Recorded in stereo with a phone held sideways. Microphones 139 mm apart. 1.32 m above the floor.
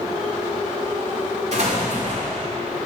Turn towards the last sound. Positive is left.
turn(degrees=-50)  # may be behind; listen again after turning